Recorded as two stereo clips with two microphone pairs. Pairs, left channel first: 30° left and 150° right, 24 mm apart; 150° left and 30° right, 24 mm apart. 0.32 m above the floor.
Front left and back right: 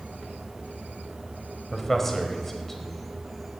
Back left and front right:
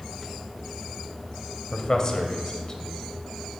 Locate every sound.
1.7 s a man speaking: 105° left, 1.1 m